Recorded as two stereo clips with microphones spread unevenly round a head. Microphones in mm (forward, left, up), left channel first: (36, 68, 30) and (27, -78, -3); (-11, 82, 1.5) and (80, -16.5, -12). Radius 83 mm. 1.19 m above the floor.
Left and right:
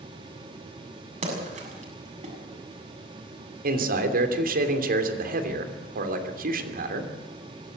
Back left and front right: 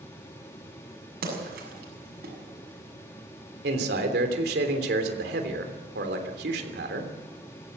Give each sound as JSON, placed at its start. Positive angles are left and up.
{"t": 1.2, "sound": "a splash", "azimuth_deg": -50, "distance_m": 7.5}
{"t": 3.6, "sound": "a man speaking", "azimuth_deg": -70, "distance_m": 3.0}